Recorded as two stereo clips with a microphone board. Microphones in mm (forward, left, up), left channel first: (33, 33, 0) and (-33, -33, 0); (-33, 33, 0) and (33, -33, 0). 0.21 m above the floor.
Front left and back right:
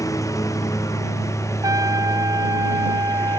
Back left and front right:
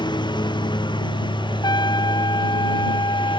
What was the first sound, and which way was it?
A lawn mower, 100° left.